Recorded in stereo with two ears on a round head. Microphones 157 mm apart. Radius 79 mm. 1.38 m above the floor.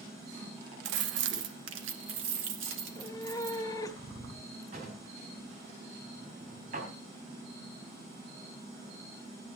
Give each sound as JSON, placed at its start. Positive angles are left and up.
{"t": 0.8, "sound": "keys jangling", "side_deg": -70, "distance_m": 0.7}
{"t": 2.8, "sound": "a cat meowing", "side_deg": 20, "distance_m": 1.3}
{"t": 4.7, "sound": "a drawer", "side_deg": -45, "distance_m": 4.0}